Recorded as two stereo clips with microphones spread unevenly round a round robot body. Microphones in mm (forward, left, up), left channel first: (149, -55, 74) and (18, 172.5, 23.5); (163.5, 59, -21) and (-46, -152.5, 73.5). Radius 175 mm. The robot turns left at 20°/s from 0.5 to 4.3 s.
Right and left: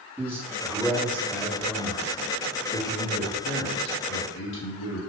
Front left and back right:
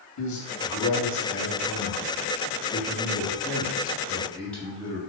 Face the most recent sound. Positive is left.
turn(degrees=-35)